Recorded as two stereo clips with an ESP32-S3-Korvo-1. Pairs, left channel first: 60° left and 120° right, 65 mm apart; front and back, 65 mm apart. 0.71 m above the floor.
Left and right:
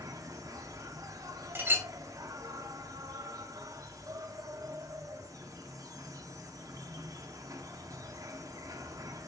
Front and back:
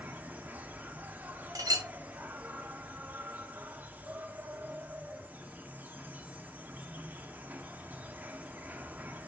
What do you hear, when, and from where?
0.0 s an insect: 120° right, 0.8 m
1.6 s a clink: 175° right, 1.4 m